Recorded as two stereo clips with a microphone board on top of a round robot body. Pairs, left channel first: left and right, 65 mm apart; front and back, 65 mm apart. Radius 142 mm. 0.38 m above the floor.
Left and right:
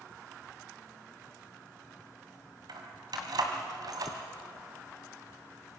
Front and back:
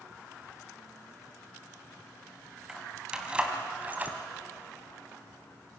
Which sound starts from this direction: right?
Keys jangling, at 2.7 s.